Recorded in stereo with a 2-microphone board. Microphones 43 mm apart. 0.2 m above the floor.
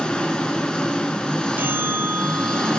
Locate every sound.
0.0 s an engine running: 20° left (ahead or behind), 1.0 m
1.6 s a bell: 50° right (ahead or behind), 0.6 m